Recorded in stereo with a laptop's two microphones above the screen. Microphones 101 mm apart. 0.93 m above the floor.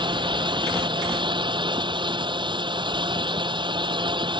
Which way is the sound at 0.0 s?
50° right (ahead or behind).